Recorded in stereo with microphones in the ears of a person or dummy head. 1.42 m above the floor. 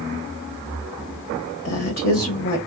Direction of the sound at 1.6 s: 50° left (ahead or behind).